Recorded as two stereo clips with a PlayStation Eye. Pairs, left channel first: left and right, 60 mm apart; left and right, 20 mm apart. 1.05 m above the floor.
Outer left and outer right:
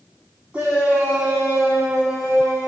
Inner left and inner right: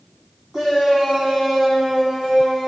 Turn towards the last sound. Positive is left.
turn(degrees=-15)  # may be behind; listen again after turning